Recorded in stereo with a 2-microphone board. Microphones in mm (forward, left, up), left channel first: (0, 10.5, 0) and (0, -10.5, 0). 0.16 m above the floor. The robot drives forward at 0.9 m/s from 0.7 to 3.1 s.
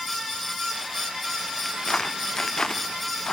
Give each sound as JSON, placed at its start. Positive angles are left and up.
{"t": 1.6, "sound": "footsteps", "side_deg": 35}